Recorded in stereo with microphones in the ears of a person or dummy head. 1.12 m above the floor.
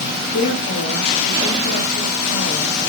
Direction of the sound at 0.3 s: 80° left.